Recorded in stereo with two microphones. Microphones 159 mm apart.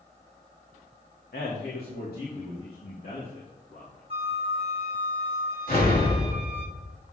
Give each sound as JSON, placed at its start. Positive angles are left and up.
{"t": 1.3, "sound": "a man speaking", "side_deg": 85, "distance_m": 1.6}
{"t": 4.1, "sound": "a flute", "side_deg": -40, "distance_m": 1.1}
{"t": 5.7, "sound": "an explosion", "side_deg": 70, "distance_m": 3.5}